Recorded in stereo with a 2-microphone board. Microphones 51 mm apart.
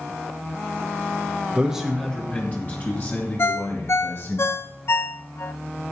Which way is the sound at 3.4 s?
50° left (ahead or behind).